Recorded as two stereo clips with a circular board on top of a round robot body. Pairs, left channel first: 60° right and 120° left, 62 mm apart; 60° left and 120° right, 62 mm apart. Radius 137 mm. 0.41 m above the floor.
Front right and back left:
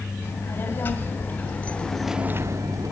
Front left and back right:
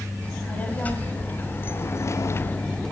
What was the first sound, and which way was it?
A child speaking, 5° right.